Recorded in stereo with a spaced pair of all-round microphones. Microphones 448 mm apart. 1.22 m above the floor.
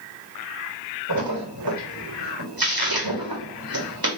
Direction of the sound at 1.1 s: 50° right (ahead or behind).